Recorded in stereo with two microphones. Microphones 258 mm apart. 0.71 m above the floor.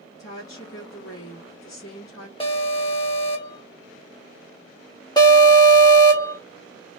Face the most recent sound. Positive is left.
turn(degrees=15)  # may be behind; listen again after turning